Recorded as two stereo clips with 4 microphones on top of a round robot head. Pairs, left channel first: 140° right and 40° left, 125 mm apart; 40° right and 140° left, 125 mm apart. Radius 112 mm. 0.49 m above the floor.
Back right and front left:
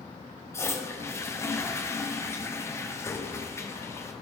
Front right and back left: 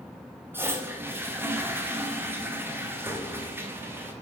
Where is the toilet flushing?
175° right, 0.9 m.